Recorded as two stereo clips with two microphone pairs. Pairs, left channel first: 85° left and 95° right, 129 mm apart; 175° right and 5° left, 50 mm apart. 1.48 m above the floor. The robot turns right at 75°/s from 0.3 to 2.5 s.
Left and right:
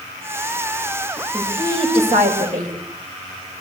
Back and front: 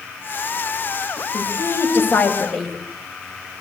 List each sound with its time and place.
1.3 s a woman speaking: 175° right, 10 m; by 2.7 s 90° right, 10 m